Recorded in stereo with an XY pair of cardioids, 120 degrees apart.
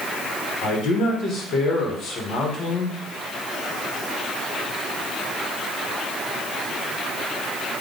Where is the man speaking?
50° left, 1.6 m.